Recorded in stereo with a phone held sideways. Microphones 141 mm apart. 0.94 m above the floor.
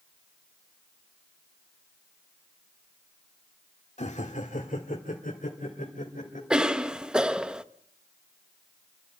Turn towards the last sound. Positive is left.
turn(degrees=-5)  # may be behind; listen again after turning